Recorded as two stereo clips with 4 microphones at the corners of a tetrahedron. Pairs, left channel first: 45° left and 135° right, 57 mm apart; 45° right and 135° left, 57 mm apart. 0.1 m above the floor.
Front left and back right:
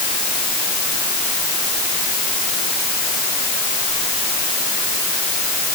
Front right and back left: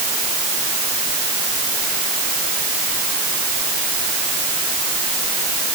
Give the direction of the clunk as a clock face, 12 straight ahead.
I don't hear a clunk.